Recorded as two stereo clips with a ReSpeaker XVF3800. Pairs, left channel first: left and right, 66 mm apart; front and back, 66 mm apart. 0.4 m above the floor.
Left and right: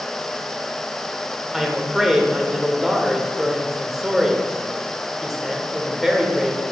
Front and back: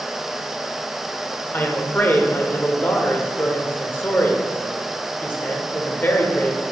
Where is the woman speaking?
10° right, 1.0 m.